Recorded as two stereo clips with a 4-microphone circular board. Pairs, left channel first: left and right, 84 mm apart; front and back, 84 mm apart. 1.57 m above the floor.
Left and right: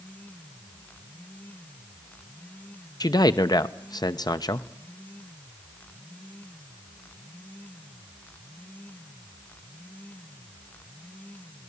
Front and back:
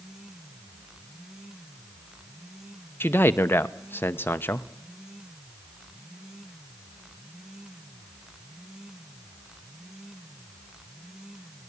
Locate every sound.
3.0 s a man speaking: 60° left, 0.8 m